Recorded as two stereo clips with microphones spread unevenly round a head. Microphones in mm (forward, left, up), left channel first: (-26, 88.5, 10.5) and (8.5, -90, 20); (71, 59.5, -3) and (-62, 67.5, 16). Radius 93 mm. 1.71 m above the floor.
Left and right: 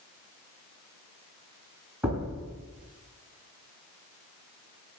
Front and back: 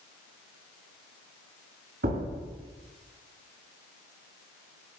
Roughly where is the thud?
Behind.